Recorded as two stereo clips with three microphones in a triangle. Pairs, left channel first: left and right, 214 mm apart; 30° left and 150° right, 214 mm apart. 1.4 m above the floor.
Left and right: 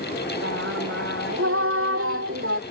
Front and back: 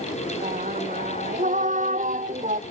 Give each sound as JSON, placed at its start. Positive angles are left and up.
{"t": 0.4, "sound": "singing", "azimuth_deg": -95}